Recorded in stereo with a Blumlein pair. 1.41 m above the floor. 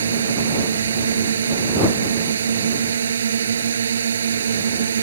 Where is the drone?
70° right.